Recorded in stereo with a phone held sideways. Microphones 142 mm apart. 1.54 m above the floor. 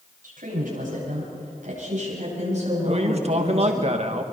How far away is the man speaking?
About 1.7 m.